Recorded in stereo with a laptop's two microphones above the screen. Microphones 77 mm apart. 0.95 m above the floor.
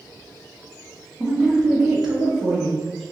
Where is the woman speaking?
15° right (ahead or behind), 1.0 m; by 3.0 s centre (ahead or behind), 1.8 m.